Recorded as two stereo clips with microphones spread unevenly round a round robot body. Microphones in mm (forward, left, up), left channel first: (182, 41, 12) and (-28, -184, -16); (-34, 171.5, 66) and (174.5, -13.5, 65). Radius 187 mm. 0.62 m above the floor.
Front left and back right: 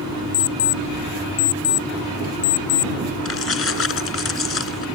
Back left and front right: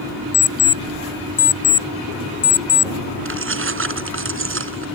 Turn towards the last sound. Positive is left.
turn(degrees=0)